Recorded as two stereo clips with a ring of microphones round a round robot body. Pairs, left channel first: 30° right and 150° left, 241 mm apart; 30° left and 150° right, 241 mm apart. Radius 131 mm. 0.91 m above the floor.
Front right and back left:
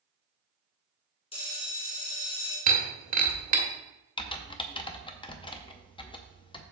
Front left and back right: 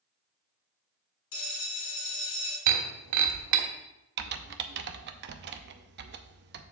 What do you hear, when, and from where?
1.3 s a bell: 40° left, 3.5 m
2.7 s breaking glass: 155° right, 1.3 m
4.2 s typing on a keyboard: 100° right, 0.7 m